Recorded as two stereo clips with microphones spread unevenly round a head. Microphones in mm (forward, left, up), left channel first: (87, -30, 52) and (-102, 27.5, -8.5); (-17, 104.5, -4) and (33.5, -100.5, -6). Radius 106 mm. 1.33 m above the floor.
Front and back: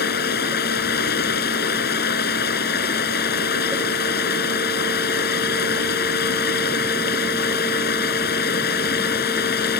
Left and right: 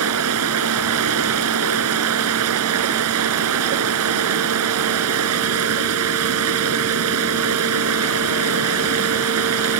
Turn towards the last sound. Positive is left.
turn(degrees=-60)